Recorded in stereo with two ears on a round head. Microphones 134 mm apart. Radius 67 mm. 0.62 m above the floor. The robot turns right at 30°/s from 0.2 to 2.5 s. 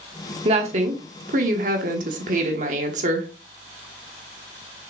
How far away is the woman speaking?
About 1.2 m.